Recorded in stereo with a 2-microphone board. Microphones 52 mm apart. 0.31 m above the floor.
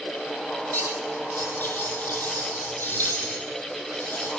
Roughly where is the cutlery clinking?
Left.